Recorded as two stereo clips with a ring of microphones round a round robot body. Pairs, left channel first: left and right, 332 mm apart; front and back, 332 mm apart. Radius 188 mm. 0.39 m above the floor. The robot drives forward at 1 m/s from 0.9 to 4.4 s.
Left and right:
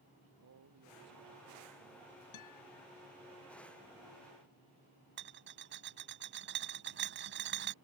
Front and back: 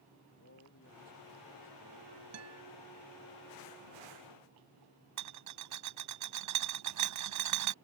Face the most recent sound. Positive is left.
turn(degrees=-150)